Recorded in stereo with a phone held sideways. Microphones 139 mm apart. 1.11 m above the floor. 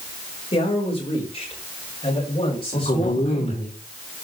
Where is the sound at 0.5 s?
45° left (ahead or behind), 4.5 m.